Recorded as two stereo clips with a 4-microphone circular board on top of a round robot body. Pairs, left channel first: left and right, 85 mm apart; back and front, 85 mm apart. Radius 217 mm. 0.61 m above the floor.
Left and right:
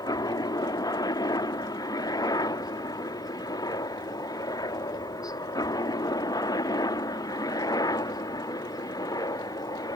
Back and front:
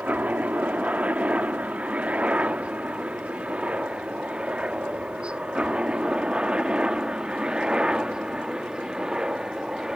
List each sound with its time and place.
0.0 s a helicopter: 70° left; by 10.0 s 80° left